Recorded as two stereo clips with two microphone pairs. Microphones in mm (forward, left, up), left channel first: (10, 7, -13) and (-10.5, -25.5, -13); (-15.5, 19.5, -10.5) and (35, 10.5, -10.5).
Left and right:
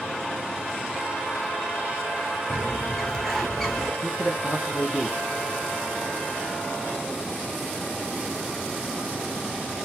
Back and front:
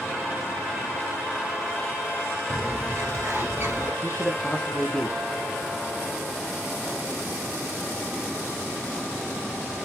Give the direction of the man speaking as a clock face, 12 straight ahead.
5 o'clock.